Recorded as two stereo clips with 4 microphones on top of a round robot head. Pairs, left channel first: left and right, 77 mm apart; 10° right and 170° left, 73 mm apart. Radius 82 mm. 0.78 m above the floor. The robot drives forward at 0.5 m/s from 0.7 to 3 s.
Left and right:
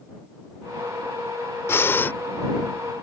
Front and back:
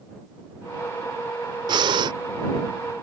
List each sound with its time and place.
1.7 s breathing: 150° left; by 2.1 s 155° left